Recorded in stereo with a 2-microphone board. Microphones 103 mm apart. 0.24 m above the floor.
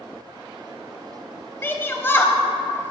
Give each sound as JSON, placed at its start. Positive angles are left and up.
{"t": 1.6, "sound": "a shout", "side_deg": 25, "distance_m": 0.9}